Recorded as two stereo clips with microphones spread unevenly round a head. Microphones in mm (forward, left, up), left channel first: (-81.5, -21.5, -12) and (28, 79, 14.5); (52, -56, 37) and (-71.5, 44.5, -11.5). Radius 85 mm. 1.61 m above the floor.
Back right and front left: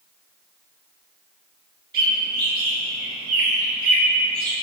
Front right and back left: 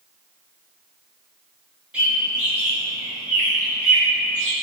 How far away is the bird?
About 3 m.